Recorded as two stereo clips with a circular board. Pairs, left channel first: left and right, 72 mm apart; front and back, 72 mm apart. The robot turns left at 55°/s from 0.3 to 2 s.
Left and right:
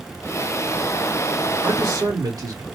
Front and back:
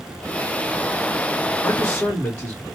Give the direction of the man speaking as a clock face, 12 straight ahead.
2 o'clock.